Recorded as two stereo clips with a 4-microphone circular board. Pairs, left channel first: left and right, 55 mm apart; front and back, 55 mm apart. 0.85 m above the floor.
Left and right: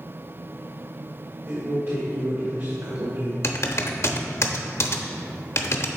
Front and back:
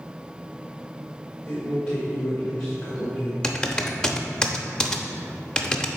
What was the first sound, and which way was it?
A man speaking, 75° right.